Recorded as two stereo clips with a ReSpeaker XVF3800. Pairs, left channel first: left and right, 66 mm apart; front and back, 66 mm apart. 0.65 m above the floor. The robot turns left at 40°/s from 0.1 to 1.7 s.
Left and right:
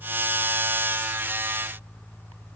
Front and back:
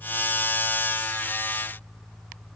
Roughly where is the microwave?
No microwave in this recording.